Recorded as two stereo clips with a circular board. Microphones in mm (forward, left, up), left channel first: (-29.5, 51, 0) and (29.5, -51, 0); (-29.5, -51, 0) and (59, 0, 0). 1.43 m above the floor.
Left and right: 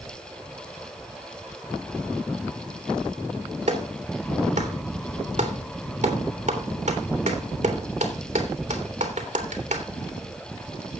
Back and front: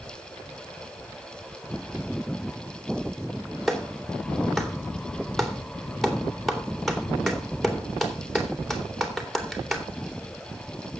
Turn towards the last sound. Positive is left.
turn(degrees=-60)